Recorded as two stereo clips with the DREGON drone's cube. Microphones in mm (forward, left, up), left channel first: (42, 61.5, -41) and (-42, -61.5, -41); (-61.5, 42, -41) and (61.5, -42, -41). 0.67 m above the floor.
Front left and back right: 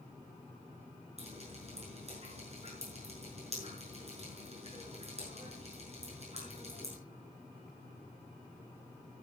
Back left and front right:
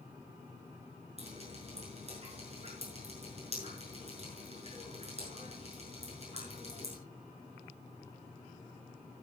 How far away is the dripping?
About 6.5 m.